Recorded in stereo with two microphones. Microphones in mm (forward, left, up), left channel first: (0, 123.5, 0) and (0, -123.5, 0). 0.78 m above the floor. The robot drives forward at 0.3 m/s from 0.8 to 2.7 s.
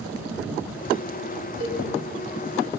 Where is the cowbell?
70° right (ahead or behind), 4 m.